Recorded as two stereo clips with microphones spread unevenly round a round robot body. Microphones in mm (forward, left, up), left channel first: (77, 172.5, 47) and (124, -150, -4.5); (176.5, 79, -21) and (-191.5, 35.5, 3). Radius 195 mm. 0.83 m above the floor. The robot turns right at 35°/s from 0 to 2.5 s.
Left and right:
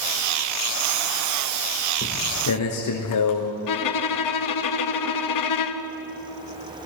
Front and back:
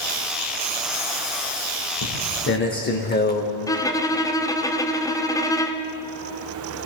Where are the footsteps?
45° left, 3.5 m; by 3.5 s 75° left, 3.5 m.